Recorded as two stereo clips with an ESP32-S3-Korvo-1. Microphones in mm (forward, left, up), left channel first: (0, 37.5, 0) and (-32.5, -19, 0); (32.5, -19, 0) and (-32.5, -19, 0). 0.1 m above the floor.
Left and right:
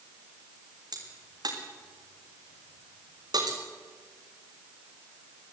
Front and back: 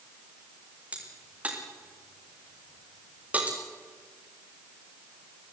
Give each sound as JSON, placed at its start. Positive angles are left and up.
{"t": 0.9, "sound": "a crack", "azimuth_deg": -110, "distance_m": 5.5}